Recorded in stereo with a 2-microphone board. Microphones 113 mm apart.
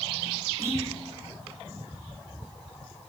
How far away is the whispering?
About 9.5 m.